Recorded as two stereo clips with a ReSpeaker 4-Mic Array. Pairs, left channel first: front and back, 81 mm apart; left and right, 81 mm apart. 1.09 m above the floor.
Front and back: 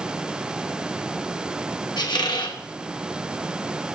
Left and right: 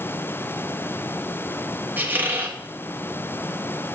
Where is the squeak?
25° right, 1.0 m.